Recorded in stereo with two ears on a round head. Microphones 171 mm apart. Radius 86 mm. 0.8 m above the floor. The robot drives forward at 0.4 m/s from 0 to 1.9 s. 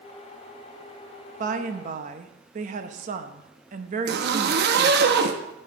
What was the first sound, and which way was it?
A woman speaking, 40° right (ahead or behind).